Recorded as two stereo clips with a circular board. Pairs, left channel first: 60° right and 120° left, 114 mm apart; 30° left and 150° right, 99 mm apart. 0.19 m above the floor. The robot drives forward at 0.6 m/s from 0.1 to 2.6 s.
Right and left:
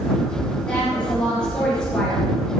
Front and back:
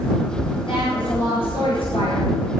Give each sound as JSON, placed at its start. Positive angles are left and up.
{"t": 0.7, "sound": "a woman speaking", "azimuth_deg": 20, "distance_m": 4.0}